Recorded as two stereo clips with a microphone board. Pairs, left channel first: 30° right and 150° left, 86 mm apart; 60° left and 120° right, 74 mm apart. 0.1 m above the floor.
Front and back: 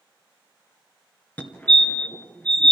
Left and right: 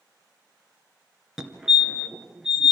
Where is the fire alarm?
50° right, 2.5 m.